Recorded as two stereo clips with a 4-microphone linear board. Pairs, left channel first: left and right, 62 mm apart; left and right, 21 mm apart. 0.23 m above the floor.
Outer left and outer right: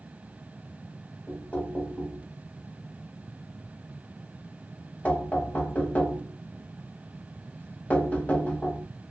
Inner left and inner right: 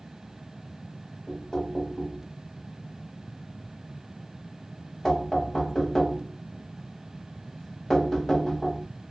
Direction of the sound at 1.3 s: 25° left (ahead or behind).